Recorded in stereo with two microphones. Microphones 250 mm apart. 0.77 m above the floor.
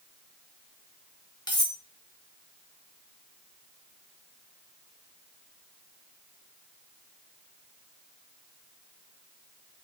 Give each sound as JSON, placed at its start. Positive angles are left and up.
{"t": 1.5, "sound": "cutlery clinking", "side_deg": 15, "distance_m": 0.6}